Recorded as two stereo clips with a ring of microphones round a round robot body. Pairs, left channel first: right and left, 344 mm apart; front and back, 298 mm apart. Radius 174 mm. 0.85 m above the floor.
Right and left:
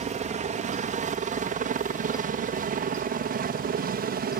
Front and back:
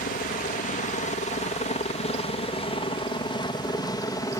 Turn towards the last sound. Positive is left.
turn(degrees=65)